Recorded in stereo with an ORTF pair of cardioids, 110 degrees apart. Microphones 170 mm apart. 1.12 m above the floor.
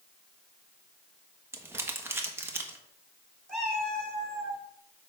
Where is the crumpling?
15° right, 1.3 m.